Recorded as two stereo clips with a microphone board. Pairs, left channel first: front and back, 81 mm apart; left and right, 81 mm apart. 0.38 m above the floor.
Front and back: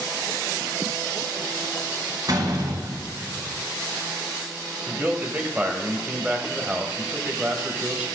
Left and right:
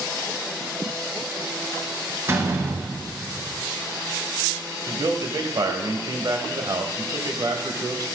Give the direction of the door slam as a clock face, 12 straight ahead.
5 o'clock.